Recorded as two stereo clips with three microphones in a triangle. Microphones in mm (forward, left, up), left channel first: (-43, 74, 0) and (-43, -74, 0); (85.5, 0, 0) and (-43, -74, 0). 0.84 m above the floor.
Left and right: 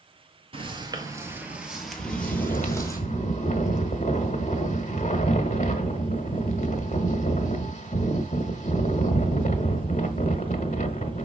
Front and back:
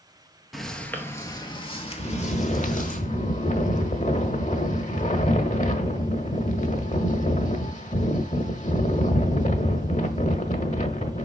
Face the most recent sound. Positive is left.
turn(degrees=60)